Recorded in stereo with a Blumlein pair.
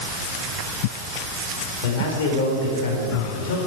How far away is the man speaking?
About 4.5 m.